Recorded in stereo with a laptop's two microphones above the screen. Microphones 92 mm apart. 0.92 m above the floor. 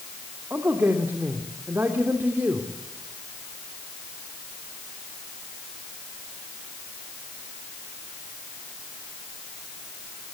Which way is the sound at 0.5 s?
25° right (ahead or behind).